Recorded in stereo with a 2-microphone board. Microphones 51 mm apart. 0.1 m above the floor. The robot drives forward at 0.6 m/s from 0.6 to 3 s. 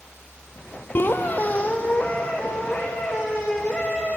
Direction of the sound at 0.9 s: 50° left (ahead or behind).